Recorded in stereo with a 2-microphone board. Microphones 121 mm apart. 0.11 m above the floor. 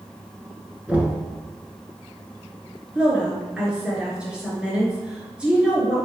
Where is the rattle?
I don't hear a rattle.